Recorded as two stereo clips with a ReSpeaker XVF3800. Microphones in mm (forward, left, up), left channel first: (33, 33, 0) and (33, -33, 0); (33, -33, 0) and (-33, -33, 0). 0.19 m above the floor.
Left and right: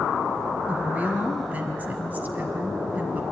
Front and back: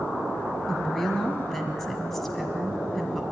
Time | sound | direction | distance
0.7 | a woman speaking | 80° right | 1.5 m